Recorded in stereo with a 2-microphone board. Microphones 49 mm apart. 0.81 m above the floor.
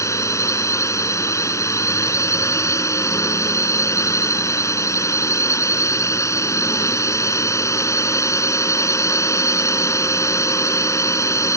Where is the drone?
80° left.